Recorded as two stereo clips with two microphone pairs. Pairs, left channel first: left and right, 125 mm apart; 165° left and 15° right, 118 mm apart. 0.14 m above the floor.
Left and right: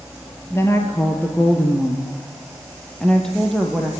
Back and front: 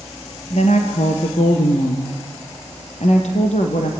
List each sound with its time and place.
0.5 s a woman speaking: 160° left, 3.5 m; by 3.9 s straight behind, 4.5 m